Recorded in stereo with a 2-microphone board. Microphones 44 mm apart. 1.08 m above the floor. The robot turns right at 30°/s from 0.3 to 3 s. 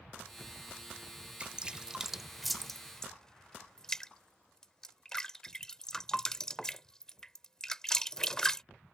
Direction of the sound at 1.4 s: 25° right (ahead or behind).